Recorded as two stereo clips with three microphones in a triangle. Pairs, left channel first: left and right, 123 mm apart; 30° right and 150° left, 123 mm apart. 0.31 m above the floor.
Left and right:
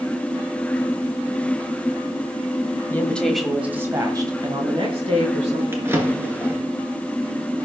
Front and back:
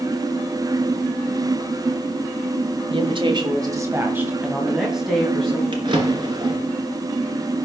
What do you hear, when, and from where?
2.9 s a woman speaking: 155° left, 1.8 m; by 5.6 s 115° right, 3 m
5.7 s a drawer: 160° right, 2.5 m